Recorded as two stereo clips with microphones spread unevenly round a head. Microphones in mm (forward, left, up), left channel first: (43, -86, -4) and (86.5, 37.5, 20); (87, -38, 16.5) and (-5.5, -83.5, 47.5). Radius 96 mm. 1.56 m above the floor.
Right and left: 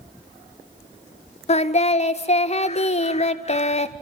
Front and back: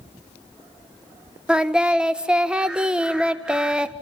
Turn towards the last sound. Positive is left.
turn(degrees=-70)